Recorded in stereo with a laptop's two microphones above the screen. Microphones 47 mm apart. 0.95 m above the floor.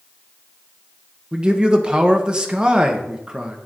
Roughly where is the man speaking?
Centre.